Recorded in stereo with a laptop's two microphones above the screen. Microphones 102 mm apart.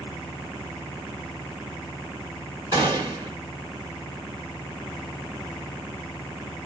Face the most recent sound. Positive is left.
turn(degrees=-45)  # may be behind; listen again after turning